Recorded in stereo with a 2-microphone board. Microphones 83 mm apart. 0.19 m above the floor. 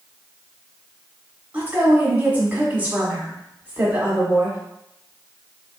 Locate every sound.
1.5 s a woman speaking: 20° right (ahead or behind), 1.1 m